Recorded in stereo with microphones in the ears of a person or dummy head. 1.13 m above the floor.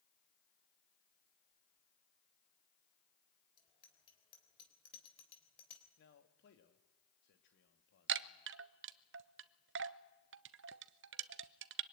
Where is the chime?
55° right (ahead or behind), 0.7 m.